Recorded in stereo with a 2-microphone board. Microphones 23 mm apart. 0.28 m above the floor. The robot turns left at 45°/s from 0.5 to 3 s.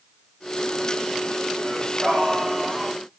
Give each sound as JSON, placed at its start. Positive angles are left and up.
{"t": 1.6, "sound": "singing", "azimuth_deg": -100, "distance_m": 9.5}